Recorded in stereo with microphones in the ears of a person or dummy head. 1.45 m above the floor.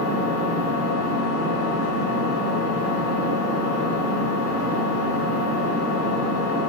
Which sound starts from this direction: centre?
An engine running, at 0.0 s.